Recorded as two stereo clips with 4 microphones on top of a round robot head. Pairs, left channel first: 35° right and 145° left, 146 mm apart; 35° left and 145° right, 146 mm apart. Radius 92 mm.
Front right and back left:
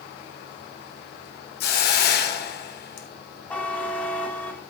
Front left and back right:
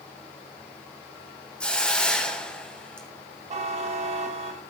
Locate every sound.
1.6 s a hiss: 45° right, 1.6 m
3.5 s a buzzer: 115° right, 1.7 m